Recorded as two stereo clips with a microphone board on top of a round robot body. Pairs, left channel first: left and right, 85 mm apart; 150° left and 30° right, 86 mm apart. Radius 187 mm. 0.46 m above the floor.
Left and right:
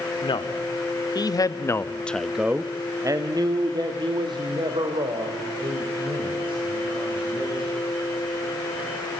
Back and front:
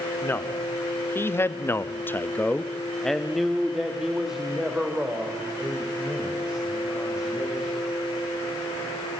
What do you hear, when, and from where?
0.2 s a man speaking: 85° left, 1.9 m; by 7.8 s 110° right, 5 m